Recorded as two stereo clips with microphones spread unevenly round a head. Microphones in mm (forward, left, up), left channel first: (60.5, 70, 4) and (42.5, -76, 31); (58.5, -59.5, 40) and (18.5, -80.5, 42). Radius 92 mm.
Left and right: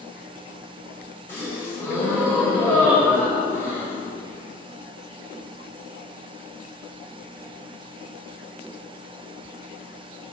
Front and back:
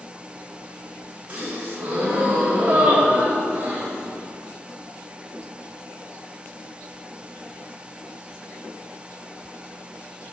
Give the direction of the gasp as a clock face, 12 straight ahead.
6 o'clock.